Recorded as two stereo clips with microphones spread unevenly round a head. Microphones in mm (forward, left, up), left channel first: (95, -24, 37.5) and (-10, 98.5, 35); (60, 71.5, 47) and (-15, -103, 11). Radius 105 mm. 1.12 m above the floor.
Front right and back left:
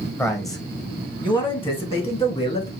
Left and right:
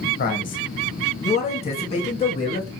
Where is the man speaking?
25° left, 1.1 m; by 2.7 s 5° left, 2 m.